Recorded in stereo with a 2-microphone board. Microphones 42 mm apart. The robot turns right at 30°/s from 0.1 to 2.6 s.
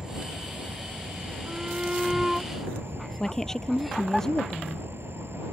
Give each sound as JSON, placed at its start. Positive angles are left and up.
{"t": 0.0, "sound": "an insect", "azimuth_deg": -160}
{"t": 1.5, "sound": "a shout", "side_deg": -35}
{"t": 3.2, "sound": "a woman speaking", "side_deg": 10}